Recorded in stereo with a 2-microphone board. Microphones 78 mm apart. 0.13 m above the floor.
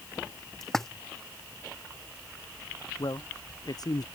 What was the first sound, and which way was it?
A splash, 5° left (ahead or behind).